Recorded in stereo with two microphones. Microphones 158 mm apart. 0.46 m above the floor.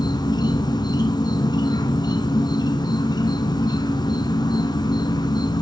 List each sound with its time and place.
0.0 s an insect: 25° left (ahead or behind), 0.9 m